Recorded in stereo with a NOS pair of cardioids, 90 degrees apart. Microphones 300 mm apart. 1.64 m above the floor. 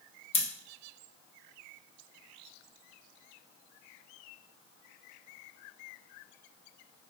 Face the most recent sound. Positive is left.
turn(degrees=20)